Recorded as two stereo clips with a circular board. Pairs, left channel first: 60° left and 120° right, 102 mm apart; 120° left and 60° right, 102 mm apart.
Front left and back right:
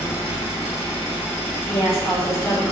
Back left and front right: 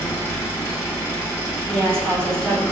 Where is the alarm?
I don't hear an alarm.